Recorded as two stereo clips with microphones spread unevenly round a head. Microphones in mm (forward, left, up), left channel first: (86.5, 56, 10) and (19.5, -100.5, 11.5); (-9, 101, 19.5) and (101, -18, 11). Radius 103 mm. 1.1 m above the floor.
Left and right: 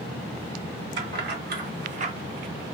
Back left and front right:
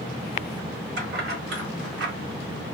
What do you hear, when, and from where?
1.0 s keys jangling: 90° right, 1.1 m; by 2.1 s 55° right, 0.5 m